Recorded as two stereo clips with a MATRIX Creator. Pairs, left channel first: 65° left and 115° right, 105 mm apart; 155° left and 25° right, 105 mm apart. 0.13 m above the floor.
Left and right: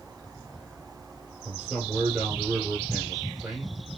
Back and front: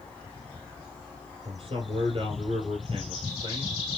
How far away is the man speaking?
About 2.5 m.